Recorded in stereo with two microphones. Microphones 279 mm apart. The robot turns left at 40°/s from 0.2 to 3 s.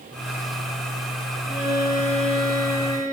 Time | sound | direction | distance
1.5 | a violin | 10° right | 1.5 m